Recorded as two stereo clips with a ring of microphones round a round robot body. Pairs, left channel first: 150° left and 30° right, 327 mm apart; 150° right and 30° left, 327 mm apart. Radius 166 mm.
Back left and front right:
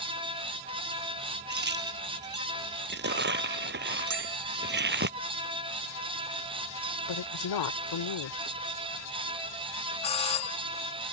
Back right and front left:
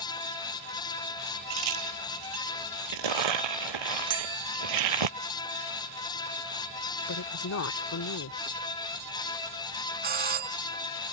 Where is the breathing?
I don't hear breathing.